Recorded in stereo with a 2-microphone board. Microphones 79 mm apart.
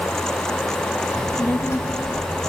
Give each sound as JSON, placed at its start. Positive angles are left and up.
{"t": 1.1, "sound": "a child speaking", "side_deg": 35, "distance_m": 1.4}